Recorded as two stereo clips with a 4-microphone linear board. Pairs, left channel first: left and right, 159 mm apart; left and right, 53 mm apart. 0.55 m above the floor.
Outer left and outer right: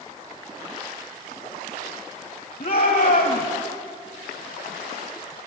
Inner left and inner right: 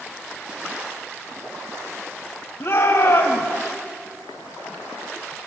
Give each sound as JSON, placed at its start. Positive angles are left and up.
{"t": 2.6, "sound": "a shout", "side_deg": 70, "distance_m": 3.0}